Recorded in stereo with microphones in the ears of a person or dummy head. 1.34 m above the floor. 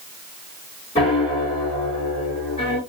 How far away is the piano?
About 3 m.